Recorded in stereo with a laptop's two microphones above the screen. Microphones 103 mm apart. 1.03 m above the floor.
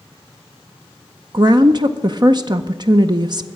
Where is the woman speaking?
45° right (ahead or behind), 0.5 m.